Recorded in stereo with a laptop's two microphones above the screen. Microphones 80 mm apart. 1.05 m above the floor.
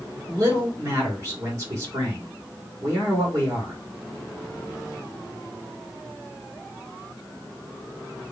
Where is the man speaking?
35° right (ahead or behind), 3 m.